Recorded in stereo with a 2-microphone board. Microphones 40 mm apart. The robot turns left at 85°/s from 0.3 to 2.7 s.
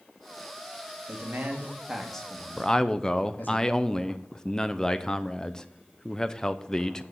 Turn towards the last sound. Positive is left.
turn(degrees=15)  # may be behind; listen again after turning